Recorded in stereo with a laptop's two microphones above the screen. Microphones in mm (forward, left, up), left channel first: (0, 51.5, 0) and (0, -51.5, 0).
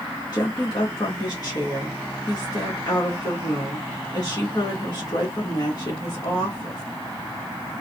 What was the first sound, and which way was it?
A woman speaking, 40° left (ahead or behind).